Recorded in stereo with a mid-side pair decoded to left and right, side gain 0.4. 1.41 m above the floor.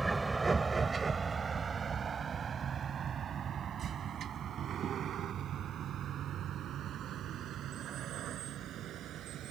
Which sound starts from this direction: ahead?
A vehicle, at 0.0 s.